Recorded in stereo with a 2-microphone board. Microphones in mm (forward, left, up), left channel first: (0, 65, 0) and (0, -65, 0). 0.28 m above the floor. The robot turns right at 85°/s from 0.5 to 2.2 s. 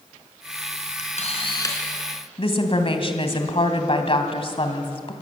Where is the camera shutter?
95° left, 3.5 m; by 1.8 s 160° left, 3.5 m.